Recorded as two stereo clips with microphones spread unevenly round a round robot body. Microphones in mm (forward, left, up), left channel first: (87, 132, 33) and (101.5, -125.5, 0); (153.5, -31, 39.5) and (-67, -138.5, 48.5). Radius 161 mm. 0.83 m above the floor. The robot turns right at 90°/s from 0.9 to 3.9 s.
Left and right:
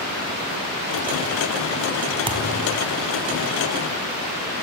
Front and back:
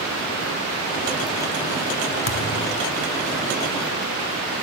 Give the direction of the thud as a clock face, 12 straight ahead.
12 o'clock.